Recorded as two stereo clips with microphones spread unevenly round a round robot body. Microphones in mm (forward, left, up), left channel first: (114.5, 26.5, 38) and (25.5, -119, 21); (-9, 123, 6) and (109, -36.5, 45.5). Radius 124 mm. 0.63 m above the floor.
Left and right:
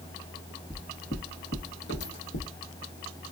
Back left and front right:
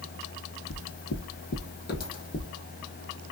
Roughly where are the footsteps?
Behind left.